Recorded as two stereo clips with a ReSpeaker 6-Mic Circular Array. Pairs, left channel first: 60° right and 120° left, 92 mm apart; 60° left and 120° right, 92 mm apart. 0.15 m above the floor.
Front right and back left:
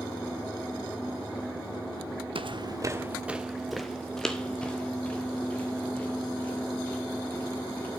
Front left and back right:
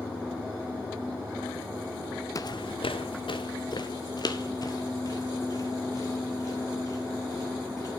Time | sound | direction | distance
2.4 | footsteps | 110° left | 0.6 m